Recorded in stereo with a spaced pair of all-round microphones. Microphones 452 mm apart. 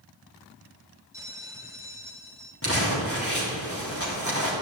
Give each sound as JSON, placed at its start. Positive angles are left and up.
{"t": 1.1, "sound": "a bell", "side_deg": -5, "distance_m": 1.4}
{"t": 2.6, "sound": "crumpling", "side_deg": 30, "distance_m": 3.5}